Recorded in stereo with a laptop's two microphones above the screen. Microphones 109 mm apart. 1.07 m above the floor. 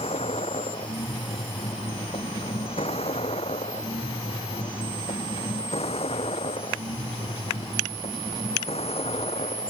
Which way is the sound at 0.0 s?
70° left (ahead or behind).